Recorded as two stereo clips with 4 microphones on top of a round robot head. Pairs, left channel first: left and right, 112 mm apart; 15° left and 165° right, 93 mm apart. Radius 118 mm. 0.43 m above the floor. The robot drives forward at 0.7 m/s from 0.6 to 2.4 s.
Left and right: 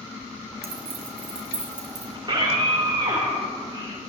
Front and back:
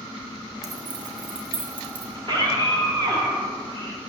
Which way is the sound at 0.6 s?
115° right.